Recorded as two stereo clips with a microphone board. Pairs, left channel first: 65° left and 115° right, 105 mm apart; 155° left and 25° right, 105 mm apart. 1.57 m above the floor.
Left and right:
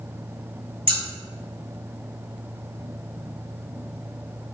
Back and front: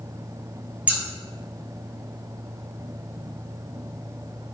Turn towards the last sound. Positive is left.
turn(degrees=-100)